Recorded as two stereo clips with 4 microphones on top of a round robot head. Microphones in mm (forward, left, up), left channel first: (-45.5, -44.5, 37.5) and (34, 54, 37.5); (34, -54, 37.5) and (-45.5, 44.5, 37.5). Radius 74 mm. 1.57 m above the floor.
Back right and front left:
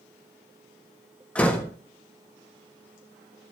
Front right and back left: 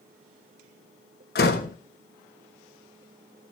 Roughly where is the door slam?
Ahead right.